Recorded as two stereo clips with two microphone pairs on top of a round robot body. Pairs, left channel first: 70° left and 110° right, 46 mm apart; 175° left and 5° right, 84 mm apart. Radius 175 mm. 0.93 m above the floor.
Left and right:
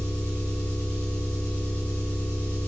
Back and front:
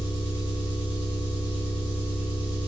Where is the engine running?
10° left, 2.0 m.